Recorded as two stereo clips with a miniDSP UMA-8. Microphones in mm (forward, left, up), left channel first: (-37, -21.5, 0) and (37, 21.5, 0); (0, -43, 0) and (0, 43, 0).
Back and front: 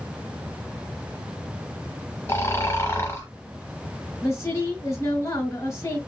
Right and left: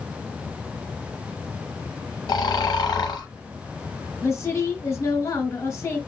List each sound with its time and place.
2.3 s snoring: 100° right, 0.9 m
4.2 s a woman speaking: 120° right, 1.5 m